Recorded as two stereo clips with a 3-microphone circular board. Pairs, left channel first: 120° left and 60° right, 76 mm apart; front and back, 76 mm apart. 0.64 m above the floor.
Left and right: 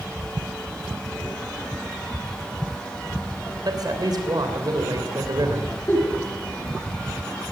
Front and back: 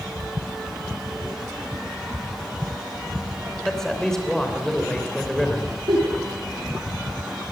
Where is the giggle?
175° right, 9 m.